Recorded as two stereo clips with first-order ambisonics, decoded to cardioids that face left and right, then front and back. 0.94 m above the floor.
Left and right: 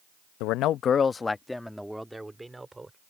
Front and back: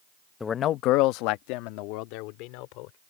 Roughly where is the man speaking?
Left.